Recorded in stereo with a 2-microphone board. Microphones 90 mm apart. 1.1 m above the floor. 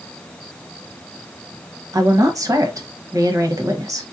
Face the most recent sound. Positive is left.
turn(degrees=-35)  # may be behind; listen again after turning